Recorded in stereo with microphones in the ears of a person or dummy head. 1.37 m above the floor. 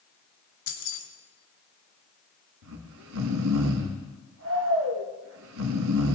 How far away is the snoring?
About 1.7 m.